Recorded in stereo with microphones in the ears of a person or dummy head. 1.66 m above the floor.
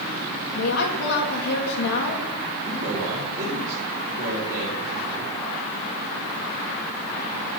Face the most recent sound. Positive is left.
turn(degrees=-45)  # may be behind; listen again after turning